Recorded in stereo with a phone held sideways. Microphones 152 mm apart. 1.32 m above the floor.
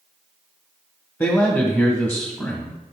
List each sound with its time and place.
1.2 s a man speaking: 15° left (ahead or behind), 1.2 m